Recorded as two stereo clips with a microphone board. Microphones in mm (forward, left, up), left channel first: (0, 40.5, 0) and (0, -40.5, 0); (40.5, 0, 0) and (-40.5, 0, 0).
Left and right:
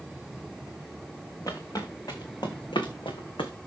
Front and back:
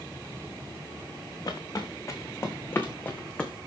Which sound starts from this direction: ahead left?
Footsteps, at 1.5 s.